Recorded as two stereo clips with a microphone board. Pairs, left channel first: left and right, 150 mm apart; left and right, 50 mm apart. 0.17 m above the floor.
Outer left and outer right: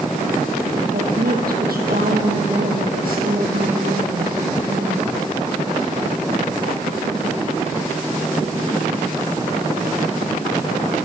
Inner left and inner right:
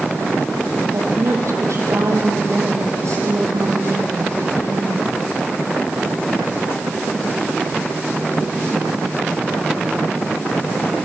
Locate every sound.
0.9 s a woman speaking: 80° right, 5 m